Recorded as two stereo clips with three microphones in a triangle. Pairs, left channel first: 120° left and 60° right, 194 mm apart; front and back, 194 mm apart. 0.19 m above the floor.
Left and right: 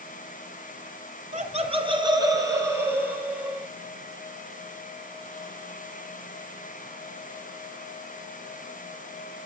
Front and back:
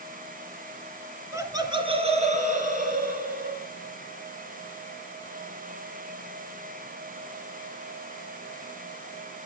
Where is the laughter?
105° right, 2 m; by 3.7 s 145° right, 4 m.